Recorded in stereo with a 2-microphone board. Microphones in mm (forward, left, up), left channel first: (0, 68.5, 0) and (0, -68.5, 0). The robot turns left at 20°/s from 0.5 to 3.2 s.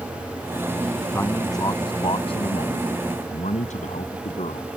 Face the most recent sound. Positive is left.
turn(degrees=120)